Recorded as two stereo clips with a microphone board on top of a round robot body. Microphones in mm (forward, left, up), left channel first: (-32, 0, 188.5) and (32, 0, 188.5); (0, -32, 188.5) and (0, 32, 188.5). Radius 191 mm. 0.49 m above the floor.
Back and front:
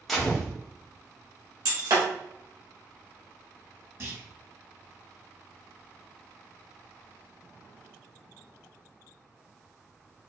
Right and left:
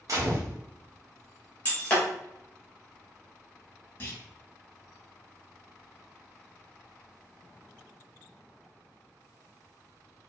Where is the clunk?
35° right, 2 m.